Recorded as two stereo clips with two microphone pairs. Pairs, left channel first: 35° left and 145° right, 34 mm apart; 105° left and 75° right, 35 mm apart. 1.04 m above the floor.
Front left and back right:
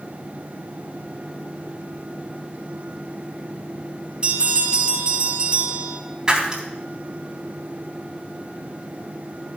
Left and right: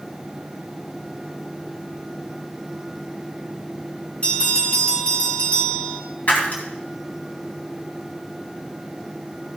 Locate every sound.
4.2 s a bell: 155° left, 4.5 m
6.3 s breaking glass: 145° left, 3 m